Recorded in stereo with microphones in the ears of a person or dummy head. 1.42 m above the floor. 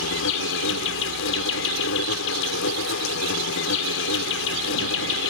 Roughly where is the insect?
Left.